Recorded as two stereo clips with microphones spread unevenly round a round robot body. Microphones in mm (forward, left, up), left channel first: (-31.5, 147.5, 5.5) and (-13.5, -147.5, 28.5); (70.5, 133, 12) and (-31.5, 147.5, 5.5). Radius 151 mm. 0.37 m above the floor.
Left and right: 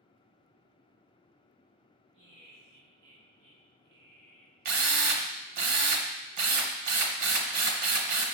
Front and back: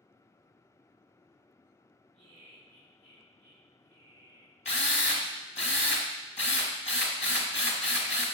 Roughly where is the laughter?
Right.